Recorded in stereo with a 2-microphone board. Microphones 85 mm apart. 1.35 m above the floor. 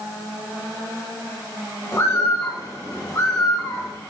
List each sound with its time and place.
1.9 s a bird: 35° left (ahead or behind), 1.6 m